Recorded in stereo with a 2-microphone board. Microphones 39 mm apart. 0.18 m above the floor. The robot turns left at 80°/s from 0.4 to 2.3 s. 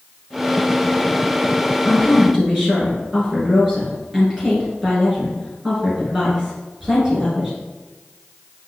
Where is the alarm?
I don't hear an alarm.